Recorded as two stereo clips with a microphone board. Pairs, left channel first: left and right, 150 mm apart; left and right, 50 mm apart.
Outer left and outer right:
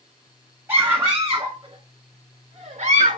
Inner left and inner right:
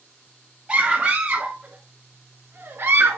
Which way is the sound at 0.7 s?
15° right (ahead or behind).